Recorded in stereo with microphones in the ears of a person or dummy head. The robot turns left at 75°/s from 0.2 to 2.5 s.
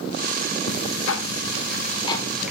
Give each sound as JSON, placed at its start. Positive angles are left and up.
{"t": 0.7, "sound": "ticking", "azimuth_deg": 130, "distance_m": 1.8}